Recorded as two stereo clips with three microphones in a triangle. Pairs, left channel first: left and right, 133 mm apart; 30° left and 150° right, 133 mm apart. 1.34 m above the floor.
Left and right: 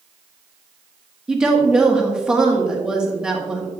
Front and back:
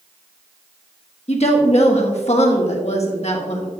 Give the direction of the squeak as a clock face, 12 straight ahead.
No squeak in this recording.